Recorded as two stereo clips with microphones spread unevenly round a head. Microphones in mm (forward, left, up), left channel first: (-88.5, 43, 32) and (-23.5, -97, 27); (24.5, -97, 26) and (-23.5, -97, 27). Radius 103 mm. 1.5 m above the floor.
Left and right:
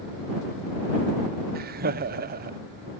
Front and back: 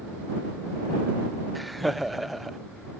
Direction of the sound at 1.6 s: 90° right.